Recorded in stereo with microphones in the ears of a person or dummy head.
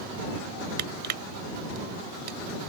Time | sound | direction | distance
0.8 | crushing | 50° right (ahead or behind) | ?